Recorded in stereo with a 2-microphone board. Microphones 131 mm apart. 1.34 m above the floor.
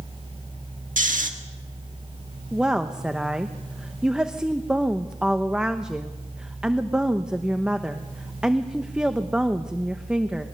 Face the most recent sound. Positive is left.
turn(degrees=-5)  # may be behind; listen again after turning